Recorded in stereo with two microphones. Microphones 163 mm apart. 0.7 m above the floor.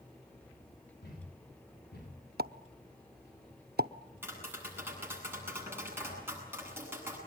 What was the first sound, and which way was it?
A thud, 75° left (ahead or behind).